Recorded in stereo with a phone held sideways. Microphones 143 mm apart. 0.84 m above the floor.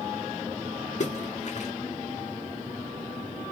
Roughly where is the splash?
Left.